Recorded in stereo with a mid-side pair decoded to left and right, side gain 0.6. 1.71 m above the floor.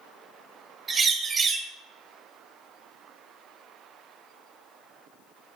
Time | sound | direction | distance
0.9 | a bird | 25° right | 1.0 m